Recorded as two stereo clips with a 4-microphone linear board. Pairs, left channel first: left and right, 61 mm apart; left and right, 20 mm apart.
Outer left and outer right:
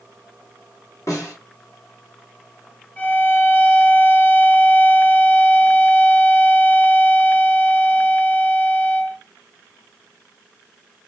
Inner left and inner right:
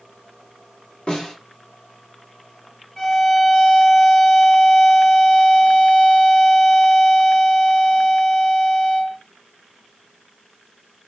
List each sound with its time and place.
1.1 s a snare drum: 65° left (ahead or behind), 1.4 m
3.0 s a violin: 25° left (ahead or behind), 0.6 m